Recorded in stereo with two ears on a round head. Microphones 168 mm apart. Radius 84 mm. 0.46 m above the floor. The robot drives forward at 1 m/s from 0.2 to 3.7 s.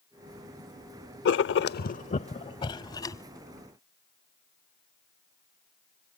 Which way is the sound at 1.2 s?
60° left (ahead or behind).